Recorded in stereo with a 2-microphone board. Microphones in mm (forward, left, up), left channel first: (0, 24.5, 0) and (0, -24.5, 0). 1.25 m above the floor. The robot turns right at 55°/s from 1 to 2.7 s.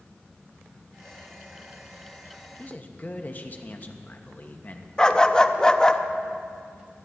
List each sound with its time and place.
2.6 s a man speaking: 30° left (ahead or behind), 1.1 m; by 4.9 s 35° left (ahead or behind), 1.1 m
5.0 s a dog barking: 20° left (ahead or behind), 0.6 m